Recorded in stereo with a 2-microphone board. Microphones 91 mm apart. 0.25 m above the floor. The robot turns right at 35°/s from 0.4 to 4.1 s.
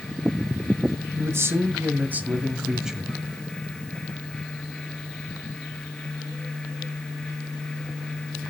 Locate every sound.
1.2 s a man speaking: 75° right, 1.5 m; by 3.2 s 5° right, 1.5 m